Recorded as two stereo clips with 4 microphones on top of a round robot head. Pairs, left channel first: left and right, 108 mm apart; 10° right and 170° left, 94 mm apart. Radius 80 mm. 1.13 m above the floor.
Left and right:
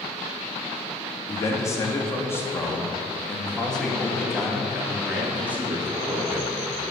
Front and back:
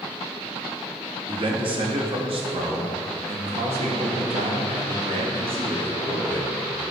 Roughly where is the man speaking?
Behind left.